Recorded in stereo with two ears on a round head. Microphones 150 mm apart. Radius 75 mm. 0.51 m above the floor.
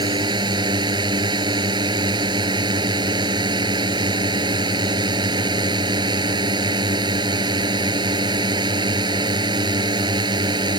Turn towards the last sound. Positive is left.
turn(degrees=-25)  # may be behind; listen again after turning